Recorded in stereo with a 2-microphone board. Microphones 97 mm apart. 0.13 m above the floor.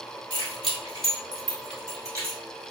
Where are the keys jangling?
45° right (ahead or behind), 1.6 m; by 2.4 s 25° right (ahead or behind), 1.5 m.